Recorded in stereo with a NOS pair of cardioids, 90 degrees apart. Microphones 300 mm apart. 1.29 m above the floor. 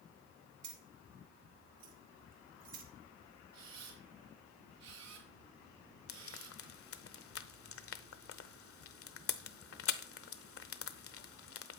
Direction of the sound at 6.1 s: 45° left.